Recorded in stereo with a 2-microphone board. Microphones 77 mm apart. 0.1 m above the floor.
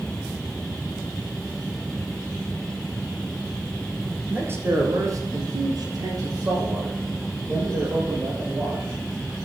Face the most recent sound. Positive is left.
turn(degrees=-35)  # may be behind; listen again after turning